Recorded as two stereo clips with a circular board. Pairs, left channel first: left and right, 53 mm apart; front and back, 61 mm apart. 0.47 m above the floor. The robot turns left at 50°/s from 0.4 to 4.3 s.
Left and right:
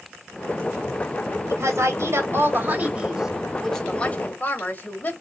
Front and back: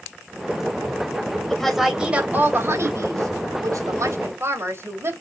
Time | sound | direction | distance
1.5 | a woman speaking | 75° right | 2.5 m